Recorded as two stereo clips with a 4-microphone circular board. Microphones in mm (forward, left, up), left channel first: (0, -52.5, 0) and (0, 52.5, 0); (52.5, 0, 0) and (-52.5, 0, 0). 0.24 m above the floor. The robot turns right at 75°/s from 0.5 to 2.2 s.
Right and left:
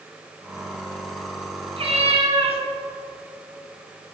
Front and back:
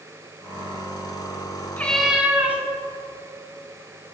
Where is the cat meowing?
70° left, 1.5 m; by 2.6 s 105° left, 1.5 m.